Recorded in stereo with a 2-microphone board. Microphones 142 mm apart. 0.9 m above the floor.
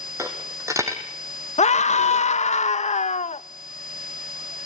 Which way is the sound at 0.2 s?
20° right (ahead or behind).